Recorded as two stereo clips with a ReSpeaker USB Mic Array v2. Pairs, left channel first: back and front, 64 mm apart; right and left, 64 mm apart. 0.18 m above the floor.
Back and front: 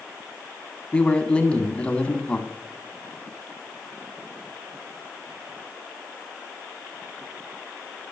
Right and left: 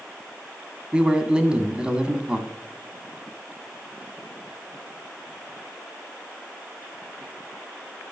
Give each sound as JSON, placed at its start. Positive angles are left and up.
{"t": 0.9, "sound": "a man speaking", "azimuth_deg": 145, "distance_m": 1.3}